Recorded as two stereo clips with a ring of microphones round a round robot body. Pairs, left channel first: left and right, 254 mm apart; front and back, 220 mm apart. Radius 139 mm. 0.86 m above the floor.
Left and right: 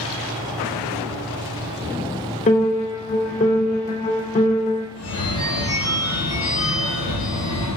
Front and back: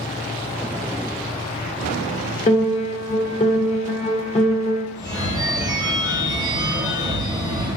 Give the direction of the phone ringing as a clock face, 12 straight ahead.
8 o'clock.